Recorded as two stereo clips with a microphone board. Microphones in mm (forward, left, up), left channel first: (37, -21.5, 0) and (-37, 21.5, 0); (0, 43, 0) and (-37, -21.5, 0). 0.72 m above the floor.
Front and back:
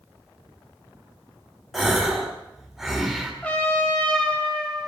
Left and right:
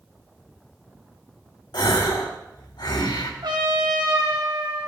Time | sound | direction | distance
1.7 | a gasp | 60° left | 2.5 m
3.4 | a trumpet | 105° right | 3.5 m